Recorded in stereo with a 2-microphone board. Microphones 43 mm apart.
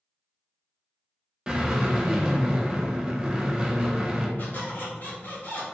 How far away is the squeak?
About 1.0 m.